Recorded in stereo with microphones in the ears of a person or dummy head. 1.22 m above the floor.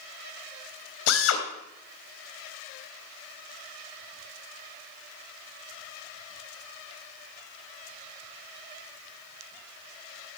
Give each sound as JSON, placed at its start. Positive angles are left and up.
{"t": 1.1, "sound": "a drill", "side_deg": 75, "distance_m": 3.0}